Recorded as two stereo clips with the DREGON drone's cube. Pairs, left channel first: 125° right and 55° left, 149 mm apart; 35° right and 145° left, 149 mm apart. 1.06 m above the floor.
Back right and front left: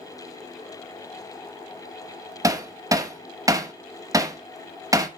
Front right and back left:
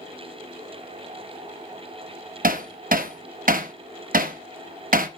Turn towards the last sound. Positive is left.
turn(degrees=125)